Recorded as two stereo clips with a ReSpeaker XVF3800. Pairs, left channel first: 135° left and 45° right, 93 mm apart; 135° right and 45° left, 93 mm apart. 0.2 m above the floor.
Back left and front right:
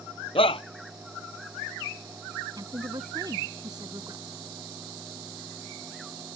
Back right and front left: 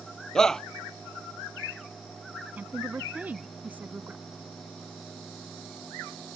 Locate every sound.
0.3 s a shout: 140° left
2.6 s a woman speaking: 20° right